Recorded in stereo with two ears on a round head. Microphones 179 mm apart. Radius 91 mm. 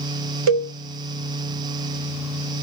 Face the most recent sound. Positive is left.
turn(degrees=-80)